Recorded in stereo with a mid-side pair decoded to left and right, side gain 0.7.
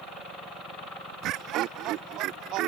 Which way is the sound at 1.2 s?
55° right.